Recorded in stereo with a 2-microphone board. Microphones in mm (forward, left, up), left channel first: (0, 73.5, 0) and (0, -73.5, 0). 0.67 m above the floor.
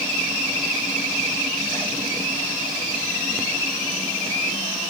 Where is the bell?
I don't hear a bell.